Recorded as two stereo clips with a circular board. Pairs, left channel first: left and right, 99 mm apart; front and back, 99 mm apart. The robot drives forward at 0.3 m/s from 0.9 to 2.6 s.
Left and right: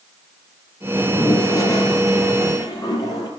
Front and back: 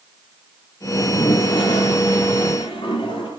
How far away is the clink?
I don't hear a clink.